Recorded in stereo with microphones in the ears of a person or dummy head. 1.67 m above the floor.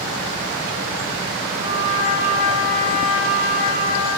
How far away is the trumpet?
About 1.9 m.